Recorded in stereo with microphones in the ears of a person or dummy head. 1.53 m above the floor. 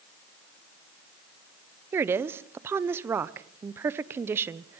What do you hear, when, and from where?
1.9 s a woman speaking: 15° right (ahead or behind), 0.8 m